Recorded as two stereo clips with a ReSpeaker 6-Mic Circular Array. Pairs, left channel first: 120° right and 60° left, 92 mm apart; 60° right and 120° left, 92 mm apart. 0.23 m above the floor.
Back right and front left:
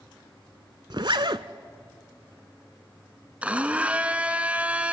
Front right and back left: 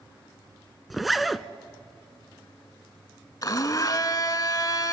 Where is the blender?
15° right, 0.9 m.